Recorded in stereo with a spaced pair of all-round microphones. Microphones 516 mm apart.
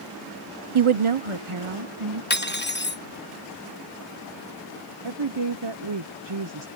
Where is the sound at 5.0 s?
60° right (ahead or behind).